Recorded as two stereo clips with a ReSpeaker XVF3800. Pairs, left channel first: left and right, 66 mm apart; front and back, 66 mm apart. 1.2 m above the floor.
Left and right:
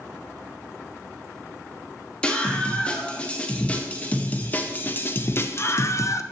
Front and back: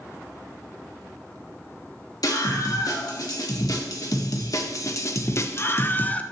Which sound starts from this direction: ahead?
A scream, at 2.2 s.